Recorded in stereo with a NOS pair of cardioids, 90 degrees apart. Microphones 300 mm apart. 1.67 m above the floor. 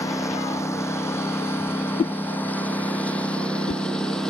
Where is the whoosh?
25° left.